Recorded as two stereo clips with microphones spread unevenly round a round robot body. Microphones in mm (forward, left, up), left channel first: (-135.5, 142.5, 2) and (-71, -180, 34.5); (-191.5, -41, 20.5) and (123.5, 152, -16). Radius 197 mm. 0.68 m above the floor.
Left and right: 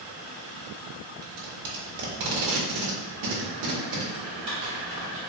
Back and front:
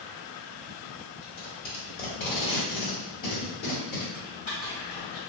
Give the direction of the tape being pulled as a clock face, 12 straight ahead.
3 o'clock.